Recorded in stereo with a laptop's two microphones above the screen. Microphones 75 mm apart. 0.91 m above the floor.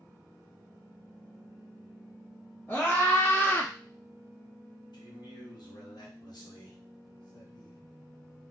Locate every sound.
2.7 s a scream: 30° left (ahead or behind), 1.0 m; by 3.7 s 25° left (ahead or behind), 0.5 m
4.9 s a man speaking: 70° left (ahead or behind), 0.7 m